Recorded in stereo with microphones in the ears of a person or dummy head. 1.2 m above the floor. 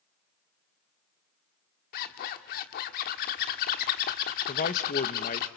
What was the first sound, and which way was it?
A zipper, 50° left (ahead or behind).